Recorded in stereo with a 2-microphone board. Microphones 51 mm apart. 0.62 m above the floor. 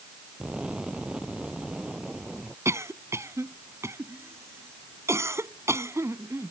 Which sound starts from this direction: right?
A cough, at 2.6 s.